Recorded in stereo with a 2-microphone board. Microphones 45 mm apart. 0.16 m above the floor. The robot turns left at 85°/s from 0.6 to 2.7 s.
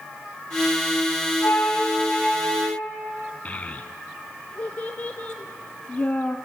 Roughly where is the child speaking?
Left.